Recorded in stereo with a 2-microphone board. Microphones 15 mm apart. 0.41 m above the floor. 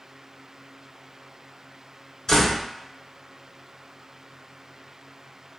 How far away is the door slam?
About 1.0 m.